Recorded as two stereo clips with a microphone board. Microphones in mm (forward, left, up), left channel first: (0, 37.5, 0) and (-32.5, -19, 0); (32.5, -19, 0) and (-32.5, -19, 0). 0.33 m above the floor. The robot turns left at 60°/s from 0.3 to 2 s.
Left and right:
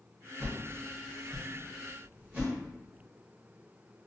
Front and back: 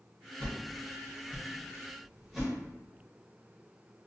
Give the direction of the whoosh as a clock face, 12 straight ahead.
12 o'clock.